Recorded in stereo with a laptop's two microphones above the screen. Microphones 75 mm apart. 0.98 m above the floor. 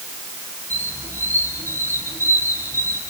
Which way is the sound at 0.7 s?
40° right (ahead or behind).